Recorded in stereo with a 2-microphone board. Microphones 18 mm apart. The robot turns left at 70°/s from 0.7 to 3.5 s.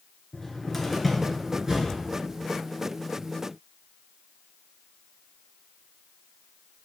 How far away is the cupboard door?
About 1.7 m.